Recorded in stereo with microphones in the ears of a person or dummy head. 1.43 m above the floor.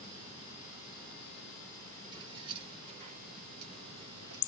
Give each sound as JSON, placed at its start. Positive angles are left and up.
{"t": 2.1, "sound": "keys jangling", "side_deg": -25, "distance_m": 3.0}